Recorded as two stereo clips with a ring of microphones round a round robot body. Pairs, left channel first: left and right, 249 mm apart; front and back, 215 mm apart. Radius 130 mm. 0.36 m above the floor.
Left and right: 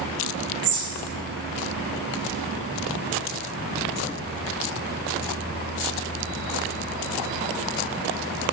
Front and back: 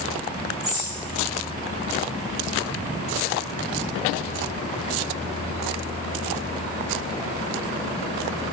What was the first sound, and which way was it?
A bird, 100° right.